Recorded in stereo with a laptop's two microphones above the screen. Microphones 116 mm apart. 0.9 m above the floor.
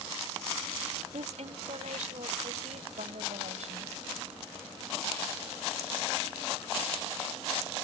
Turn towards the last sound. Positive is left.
turn(degrees=-75)  # may be behind; listen again after turning